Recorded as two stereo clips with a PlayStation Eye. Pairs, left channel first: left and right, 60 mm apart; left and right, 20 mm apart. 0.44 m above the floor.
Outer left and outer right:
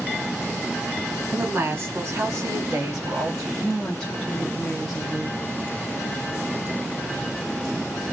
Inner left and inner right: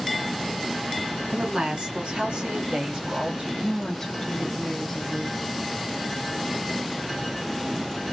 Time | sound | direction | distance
1.3 | a woman speaking | 40° right (ahead or behind) | 2.5 m
3.6 | a woman speaking | 10° left (ahead or behind) | 1.3 m